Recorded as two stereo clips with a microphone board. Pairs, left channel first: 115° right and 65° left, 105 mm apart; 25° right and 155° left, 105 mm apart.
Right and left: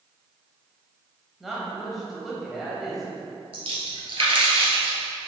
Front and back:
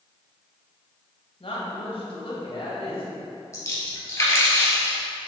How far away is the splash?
About 1.8 m.